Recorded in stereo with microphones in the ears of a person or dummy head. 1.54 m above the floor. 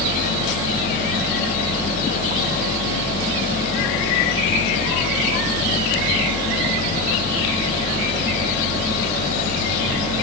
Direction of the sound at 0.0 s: 35° left (ahead or behind).